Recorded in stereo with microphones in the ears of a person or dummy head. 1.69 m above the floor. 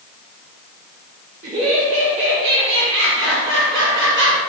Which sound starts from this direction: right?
Laughter, at 1.4 s.